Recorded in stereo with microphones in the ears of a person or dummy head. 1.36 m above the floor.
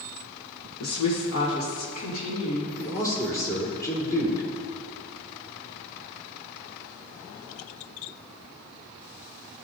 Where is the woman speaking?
85° left, 1.1 m; by 2.7 s 75° left (ahead or behind), 3 m.